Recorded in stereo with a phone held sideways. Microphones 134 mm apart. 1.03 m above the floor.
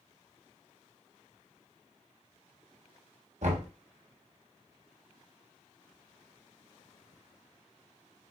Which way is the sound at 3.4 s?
60° right (ahead or behind).